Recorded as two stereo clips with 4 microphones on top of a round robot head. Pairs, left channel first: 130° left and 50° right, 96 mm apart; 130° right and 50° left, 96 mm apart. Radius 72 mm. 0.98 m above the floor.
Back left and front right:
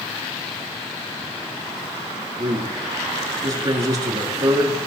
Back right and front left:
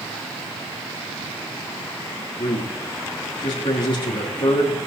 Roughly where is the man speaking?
Right.